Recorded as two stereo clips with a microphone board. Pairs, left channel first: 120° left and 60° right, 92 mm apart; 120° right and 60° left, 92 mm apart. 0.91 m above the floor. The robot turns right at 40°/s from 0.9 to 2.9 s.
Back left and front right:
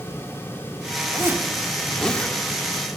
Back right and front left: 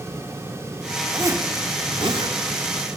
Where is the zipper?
Straight ahead, 1.5 m; by 2.4 s 50° left, 1.5 m.